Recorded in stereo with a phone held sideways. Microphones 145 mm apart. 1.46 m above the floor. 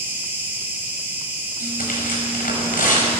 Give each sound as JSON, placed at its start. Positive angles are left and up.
{"t": 0.0, "sound": "an insect", "side_deg": -15, "distance_m": 5.5}
{"t": 1.6, "sound": "tearing paper", "side_deg": 75, "distance_m": 5.0}